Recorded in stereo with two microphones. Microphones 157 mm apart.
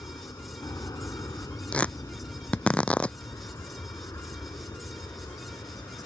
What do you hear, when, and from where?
0.0 s an aircraft: 20° left (ahead or behind)
1.7 s tearing paper: 10° left (ahead or behind)